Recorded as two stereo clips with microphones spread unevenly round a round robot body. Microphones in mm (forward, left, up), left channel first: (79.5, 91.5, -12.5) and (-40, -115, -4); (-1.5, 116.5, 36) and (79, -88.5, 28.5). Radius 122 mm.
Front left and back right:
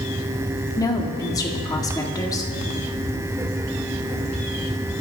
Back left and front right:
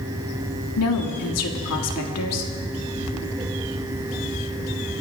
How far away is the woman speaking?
About 1.9 m.